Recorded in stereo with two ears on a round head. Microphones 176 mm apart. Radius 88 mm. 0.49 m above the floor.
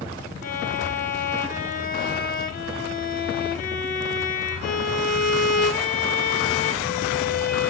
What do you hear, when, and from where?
0.4 s a violin: 45° left (ahead or behind), 2.5 m